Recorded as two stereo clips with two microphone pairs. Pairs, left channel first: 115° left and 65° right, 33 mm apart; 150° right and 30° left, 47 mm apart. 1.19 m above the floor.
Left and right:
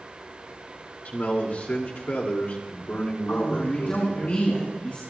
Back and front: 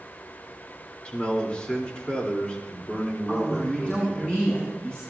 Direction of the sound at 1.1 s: 145° left.